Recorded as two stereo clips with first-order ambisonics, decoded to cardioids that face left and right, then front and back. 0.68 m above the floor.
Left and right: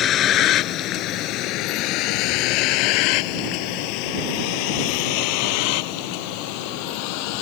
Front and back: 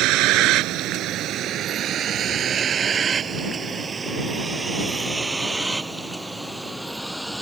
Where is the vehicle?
145° left; by 7.4 s 90° left.